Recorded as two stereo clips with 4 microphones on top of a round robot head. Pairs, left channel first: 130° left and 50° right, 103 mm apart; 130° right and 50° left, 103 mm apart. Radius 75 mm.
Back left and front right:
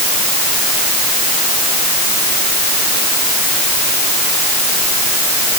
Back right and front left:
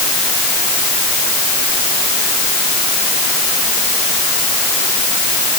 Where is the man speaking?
No man speaking in this recording.